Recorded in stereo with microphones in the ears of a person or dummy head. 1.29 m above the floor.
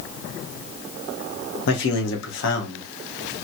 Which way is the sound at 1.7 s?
70° left (ahead or behind).